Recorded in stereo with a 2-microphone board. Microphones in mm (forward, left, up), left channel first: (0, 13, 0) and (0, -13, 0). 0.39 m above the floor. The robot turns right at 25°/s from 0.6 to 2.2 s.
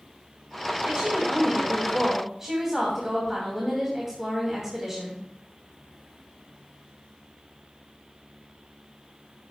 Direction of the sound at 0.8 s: 45° right.